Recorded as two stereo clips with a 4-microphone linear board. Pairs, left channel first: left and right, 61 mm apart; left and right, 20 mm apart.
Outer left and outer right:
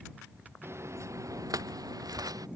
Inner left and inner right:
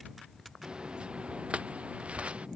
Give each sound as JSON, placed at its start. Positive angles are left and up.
{"t": 0.6, "sound": "footsteps", "side_deg": -45}